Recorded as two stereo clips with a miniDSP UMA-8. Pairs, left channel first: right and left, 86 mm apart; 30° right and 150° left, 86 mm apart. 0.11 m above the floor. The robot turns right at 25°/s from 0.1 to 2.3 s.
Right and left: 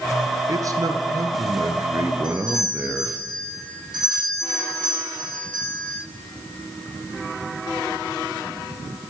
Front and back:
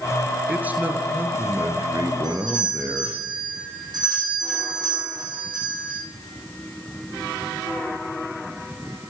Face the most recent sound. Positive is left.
turn(degrees=120)